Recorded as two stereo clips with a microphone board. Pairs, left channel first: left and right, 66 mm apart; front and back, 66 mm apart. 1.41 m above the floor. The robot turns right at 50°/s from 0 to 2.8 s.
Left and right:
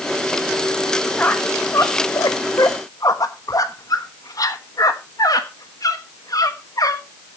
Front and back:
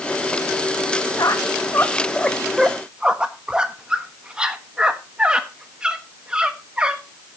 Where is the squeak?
25° left, 1.3 m; by 7.0 s 105° left, 1.3 m.